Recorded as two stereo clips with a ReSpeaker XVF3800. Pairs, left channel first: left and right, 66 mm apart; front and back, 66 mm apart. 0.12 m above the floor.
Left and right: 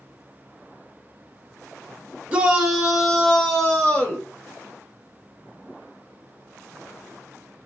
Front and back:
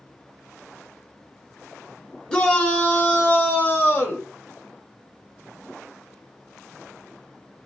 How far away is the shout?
About 1.1 m.